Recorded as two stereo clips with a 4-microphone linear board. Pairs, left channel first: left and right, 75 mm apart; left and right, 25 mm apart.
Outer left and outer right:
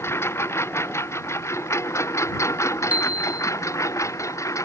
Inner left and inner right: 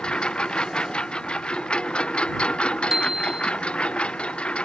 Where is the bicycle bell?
15° right (ahead or behind).